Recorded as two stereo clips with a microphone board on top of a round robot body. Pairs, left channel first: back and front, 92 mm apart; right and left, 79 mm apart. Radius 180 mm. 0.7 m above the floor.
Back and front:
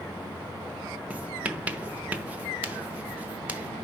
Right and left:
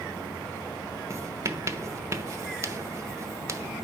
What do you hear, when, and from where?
1.1 s writing: 65° left, 1.0 m